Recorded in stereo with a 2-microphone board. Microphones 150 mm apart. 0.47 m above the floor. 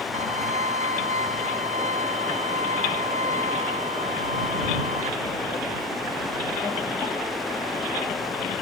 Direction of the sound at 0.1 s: 50° right (ahead or behind).